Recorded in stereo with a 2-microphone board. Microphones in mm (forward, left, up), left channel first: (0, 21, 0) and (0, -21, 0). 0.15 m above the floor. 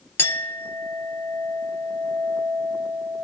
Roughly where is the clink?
Left.